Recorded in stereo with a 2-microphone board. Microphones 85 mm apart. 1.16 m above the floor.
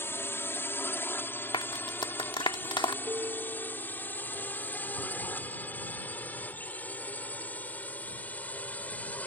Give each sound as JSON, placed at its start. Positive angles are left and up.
{"t": 0.0, "sound": "a drone", "side_deg": 25}
{"t": 1.5, "sound": "a clap", "side_deg": 75}
{"t": 3.0, "sound": "a piano", "side_deg": -40}